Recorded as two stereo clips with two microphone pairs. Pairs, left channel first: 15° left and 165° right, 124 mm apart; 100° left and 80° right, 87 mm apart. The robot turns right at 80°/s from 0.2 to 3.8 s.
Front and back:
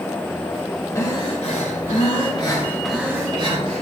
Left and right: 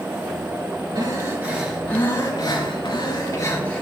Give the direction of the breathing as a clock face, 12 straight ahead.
2 o'clock.